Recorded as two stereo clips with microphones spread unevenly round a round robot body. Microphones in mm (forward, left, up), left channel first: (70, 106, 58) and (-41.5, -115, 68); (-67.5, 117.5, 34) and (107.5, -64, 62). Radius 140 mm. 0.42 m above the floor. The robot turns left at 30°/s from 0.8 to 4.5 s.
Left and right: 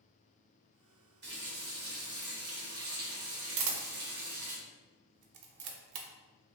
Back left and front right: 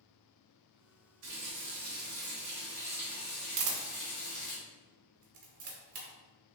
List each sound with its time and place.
1.2 s a running tap: 75° right, 1.2 m; by 4.6 s 175° right, 1.2 m
3.6 s a camera shutter: 80° right, 0.6 m; by 6.1 s 105° right, 0.6 m